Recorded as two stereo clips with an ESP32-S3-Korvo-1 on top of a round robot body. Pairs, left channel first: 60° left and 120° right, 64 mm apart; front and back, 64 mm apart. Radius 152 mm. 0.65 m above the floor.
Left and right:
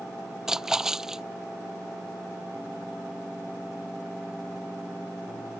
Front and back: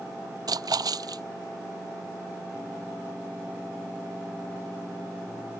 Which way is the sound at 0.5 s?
155° left.